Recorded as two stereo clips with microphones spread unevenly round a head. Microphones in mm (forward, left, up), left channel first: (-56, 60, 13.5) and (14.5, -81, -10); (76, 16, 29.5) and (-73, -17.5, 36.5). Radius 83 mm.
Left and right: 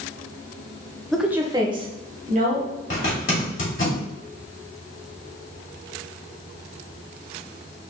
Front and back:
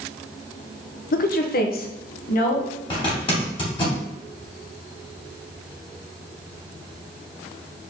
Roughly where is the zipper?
Left.